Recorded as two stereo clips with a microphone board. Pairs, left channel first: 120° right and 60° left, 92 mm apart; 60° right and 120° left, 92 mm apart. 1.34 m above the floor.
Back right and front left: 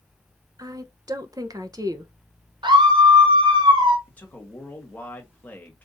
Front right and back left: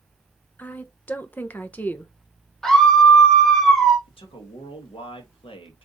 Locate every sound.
0.6 s a woman speaking: 10° left, 0.7 m
2.6 s a scream: 25° left, 0.8 m
4.1 s a man speaking: 45° right, 1.5 m